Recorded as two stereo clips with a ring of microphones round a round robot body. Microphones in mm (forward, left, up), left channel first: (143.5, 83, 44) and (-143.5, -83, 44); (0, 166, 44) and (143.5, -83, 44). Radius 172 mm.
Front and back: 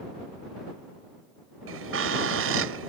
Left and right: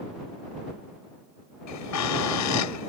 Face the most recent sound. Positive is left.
turn(degrees=160)